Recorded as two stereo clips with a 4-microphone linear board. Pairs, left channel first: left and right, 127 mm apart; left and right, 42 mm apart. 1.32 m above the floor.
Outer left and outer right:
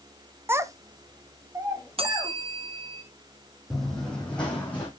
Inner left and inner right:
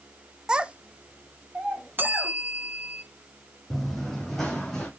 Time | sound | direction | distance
0.5 | a child speaking | 20° right (ahead or behind) | 0.6 m
2.0 | a bell | 50° right (ahead or behind) | 0.7 m
3.7 | running footsteps | centre (ahead or behind) | 2 m